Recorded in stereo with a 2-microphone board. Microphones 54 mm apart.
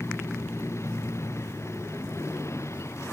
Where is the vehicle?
55° left (ahead or behind); by 3.1 s 60° left (ahead or behind).